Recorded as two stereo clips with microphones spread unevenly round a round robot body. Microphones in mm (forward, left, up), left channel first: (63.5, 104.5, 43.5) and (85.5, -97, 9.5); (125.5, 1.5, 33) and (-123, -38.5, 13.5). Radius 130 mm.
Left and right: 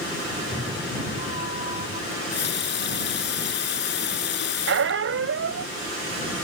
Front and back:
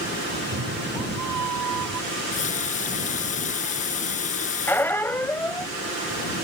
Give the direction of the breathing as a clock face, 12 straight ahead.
No breathing in this recording.